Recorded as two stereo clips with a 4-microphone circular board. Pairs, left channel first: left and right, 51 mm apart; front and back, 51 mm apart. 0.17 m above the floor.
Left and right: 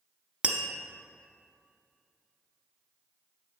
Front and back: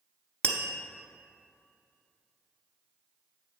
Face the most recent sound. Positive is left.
turn(degrees=-40)